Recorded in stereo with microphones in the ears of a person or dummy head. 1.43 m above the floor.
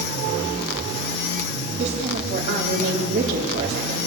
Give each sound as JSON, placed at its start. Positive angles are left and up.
{"t": 1.8, "sound": "a woman speaking", "side_deg": -40, "distance_m": 3.5}